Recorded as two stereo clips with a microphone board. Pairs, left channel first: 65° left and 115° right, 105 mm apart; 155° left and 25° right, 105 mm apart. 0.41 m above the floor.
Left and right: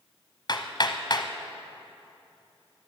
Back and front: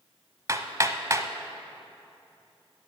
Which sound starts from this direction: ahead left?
Hammering, at 0.5 s.